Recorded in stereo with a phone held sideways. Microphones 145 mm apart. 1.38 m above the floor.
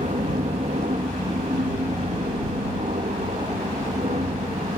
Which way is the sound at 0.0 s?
50° right (ahead or behind).